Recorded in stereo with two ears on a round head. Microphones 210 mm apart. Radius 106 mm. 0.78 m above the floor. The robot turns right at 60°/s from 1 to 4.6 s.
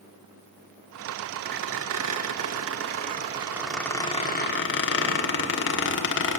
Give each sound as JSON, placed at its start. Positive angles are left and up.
{"t": 1.4, "sound": "a squeak", "side_deg": -40, "distance_m": 1.3}